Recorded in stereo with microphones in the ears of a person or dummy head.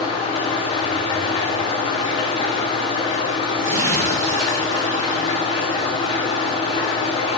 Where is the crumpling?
50° right (ahead or behind), 1.0 m.